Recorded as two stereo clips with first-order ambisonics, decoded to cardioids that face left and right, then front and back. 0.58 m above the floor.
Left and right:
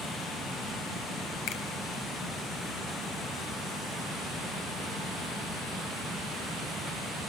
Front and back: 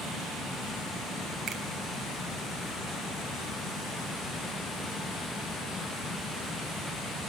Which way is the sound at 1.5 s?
120° left.